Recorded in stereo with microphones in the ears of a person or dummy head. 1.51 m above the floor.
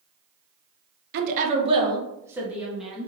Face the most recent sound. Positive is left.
turn(degrees=0)  # may be behind; listen again after turning